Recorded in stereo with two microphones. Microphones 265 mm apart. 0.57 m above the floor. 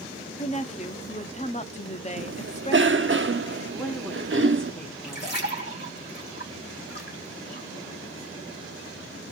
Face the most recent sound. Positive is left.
turn(degrees=40)  # may be behind; listen again after turning